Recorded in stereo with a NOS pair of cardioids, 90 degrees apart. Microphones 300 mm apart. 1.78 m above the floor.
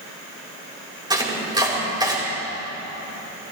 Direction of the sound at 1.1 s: 15° right.